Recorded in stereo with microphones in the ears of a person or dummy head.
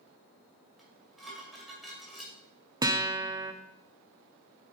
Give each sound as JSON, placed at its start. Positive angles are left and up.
{"t": 0.8, "sound": "dishes clattering", "side_deg": 0, "distance_m": 2.0}
{"t": 2.8, "sound": "a guitar", "side_deg": -15, "distance_m": 0.5}